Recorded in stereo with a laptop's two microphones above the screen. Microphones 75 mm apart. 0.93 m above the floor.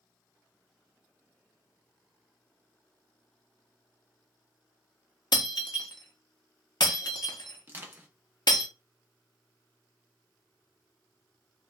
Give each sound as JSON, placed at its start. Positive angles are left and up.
{"t": 5.3, "sound": "breaking glass", "side_deg": 60, "distance_m": 0.7}
{"t": 7.7, "sound": "crushing", "side_deg": -25, "distance_m": 0.8}